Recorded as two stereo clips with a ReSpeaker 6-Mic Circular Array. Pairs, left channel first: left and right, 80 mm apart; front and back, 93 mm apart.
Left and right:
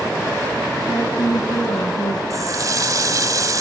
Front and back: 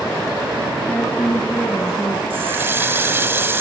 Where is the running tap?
120° right, 1.2 m.